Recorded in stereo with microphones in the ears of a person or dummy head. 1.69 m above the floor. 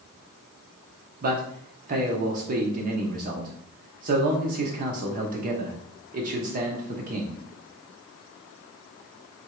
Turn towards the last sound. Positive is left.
turn(degrees=-45)  # may be behind; listen again after turning